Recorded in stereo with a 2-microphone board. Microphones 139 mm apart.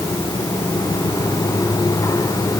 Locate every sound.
Only background noise.